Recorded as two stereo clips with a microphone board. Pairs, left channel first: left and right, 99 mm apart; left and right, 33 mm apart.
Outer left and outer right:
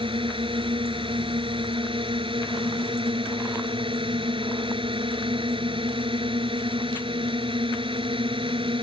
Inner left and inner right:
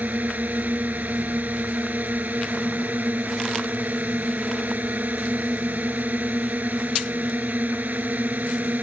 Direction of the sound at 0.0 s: 60° right (ahead or behind).